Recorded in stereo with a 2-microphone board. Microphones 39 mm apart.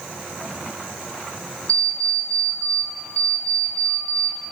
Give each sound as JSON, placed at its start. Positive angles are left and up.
{"t": 1.7, "sound": "an alarm clock", "side_deg": 30, "distance_m": 2.0}